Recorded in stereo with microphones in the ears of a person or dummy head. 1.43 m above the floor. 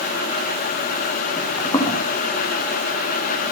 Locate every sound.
1.4 s footsteps: 15° left (ahead or behind), 8 m